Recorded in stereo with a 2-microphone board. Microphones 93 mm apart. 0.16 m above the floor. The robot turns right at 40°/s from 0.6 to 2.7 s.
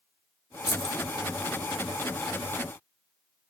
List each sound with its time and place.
0.7 s keys jangling: 55° left (ahead or behind), 2.0 m; by 1.1 s 45° left (ahead or behind), 2.0 m